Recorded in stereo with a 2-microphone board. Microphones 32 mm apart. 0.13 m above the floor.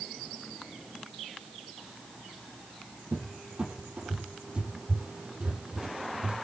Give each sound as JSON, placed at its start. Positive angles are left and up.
{"t": 3.1, "sound": "a cupboard door", "side_deg": -35, "distance_m": 4.5}